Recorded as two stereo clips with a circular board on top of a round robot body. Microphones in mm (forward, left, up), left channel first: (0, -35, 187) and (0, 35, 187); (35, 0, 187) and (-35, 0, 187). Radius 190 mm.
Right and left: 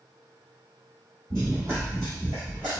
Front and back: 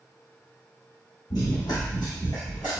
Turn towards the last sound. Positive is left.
turn(degrees=-165)